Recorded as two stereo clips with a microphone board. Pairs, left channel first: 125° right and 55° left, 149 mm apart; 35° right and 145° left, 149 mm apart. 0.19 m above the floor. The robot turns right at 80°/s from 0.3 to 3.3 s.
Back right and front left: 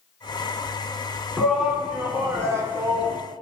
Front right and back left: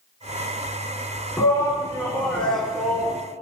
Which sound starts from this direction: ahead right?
A shout, at 1.4 s.